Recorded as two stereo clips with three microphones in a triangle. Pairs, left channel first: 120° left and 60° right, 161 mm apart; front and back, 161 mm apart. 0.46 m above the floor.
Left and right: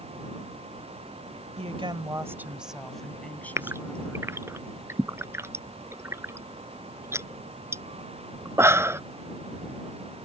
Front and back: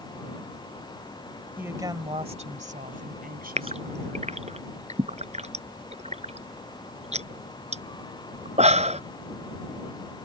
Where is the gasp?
135° right.